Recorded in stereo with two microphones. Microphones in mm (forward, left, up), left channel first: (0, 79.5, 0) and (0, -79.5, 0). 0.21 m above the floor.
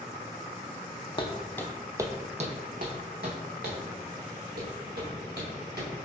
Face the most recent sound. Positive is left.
turn(degrees=-85)